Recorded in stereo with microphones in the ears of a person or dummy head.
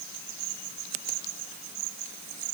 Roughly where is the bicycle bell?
No bicycle bell in this recording.